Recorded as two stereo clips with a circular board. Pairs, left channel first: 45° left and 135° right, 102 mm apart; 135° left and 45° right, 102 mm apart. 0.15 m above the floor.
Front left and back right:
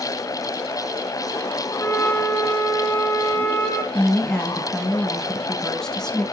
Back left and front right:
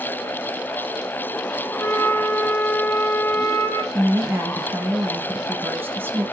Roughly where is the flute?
Left.